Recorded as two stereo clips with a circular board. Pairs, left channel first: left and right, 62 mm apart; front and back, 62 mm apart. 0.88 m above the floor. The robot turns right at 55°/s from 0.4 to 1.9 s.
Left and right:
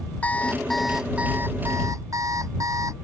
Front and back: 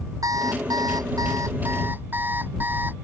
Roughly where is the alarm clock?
Behind left.